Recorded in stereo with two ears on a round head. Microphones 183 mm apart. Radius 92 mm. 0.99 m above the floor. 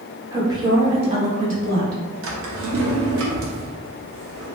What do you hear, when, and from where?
0.3 s a woman speaking: 15° right (ahead or behind), 1.4 m; by 2.0 s 55° right (ahead or behind), 1.2 m
2.2 s a drawer: 65° right (ahead or behind), 0.8 m